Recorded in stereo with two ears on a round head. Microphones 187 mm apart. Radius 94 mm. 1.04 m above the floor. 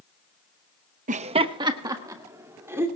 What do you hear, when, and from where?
1.1 s laughter: 35° right (ahead or behind), 0.7 m; by 2.9 s 10° right (ahead or behind), 3 m